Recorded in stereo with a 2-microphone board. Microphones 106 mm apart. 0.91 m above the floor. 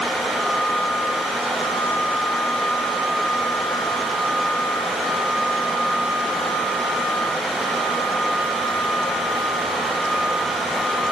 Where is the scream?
I don't hear a scream.